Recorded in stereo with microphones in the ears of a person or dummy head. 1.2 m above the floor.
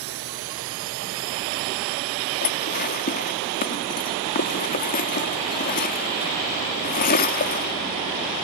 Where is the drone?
75° right (ahead or behind); by 8.4 s 65° right (ahead or behind).